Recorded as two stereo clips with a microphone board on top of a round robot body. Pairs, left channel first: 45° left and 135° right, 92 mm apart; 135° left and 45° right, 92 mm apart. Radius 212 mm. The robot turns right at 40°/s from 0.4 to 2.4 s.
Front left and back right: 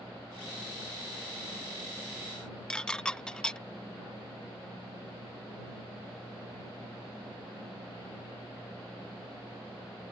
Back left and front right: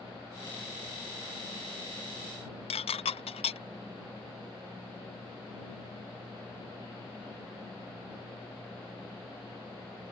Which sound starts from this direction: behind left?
Dishes clattering, at 2.7 s.